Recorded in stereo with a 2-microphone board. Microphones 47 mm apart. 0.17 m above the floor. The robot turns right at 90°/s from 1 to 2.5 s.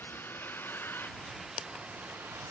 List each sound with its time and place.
0.0 s a vehicle: 135° left; by 2.5 s 90° right